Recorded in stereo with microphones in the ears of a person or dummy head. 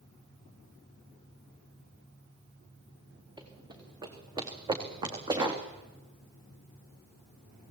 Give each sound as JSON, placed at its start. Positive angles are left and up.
{"t": 3.4, "sound": "running footsteps", "side_deg": -25, "distance_m": 5.0}